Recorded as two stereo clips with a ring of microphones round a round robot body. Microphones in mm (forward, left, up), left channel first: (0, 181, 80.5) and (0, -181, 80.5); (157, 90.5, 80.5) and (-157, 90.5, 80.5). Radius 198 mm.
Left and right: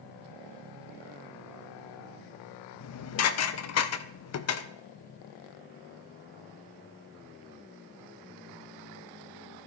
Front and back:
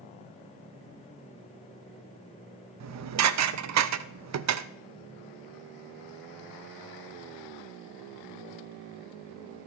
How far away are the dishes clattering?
About 0.6 m.